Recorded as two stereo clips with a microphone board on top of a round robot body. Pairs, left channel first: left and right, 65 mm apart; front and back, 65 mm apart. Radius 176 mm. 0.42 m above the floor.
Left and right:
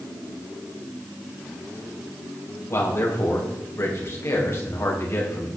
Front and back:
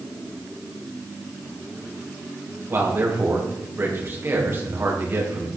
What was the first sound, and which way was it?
A man speaking, 130° left.